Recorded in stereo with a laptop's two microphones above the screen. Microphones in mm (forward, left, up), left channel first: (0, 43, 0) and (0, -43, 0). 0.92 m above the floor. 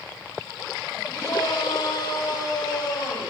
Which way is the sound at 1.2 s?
50° left (ahead or behind).